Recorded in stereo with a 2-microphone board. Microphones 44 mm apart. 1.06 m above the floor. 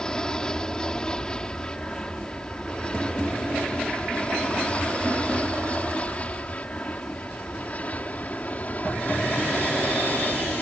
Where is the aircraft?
20° left (ahead or behind); by 10.6 s 40° left (ahead or behind).